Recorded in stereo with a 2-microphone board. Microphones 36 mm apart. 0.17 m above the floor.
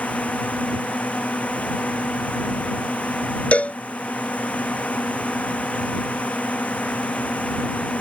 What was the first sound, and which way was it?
A drone, 45° left (ahead or behind).